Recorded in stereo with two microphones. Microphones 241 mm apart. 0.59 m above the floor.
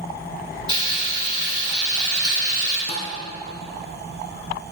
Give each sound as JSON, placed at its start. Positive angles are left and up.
{"t": 0.7, "sound": "frying", "side_deg": -20, "distance_m": 2.5}
{"t": 2.9, "sound": "a thud", "side_deg": 25, "distance_m": 1.5}